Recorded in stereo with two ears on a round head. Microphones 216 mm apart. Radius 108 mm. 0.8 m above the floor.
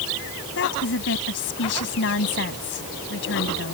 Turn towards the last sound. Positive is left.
turn(degrees=50)  # may be behind; listen again after turning